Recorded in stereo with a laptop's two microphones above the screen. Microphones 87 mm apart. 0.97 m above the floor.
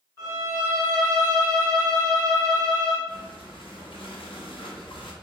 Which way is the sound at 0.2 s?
25° left (ahead or behind).